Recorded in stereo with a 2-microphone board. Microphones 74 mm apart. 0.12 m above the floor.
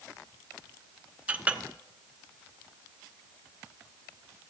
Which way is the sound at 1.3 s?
20° right (ahead or behind).